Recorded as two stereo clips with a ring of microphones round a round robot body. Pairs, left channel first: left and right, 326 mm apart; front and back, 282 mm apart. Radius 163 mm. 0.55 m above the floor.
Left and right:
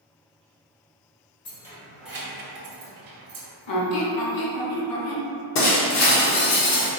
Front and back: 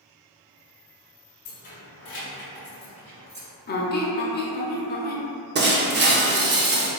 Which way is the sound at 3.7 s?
60° left.